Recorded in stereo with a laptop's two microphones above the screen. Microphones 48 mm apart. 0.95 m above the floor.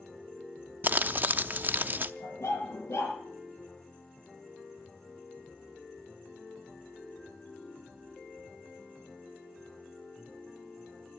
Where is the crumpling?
45° right (ahead or behind), 0.7 m.